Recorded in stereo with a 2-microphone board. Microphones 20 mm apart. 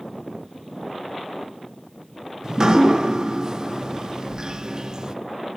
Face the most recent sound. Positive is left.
turn(degrees=-30)  # may be behind; listen again after turning